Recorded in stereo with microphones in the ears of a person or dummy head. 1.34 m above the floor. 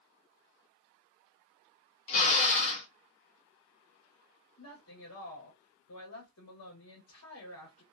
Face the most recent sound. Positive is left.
turn(degrees=90)